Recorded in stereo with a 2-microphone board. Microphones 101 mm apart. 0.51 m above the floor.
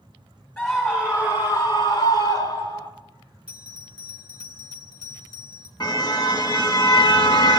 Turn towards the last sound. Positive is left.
turn(degrees=45)  # may be behind; listen again after turning